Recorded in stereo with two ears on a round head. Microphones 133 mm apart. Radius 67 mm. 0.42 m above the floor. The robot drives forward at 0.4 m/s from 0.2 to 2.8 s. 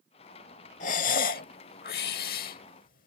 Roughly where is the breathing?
Left.